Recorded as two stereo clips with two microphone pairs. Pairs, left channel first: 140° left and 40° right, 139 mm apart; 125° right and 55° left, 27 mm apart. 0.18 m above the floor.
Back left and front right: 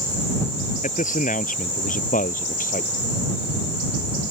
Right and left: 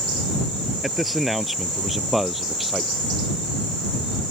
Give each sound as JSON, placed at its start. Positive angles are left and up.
{"t": 0.8, "sound": "a man speaking", "azimuth_deg": 150}